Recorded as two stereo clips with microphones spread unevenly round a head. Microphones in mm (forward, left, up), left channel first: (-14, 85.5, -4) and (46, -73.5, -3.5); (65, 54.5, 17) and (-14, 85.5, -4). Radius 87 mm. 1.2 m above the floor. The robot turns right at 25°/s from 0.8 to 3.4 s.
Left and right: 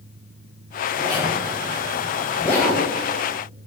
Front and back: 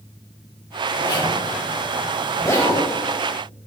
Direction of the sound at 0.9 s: 5° right.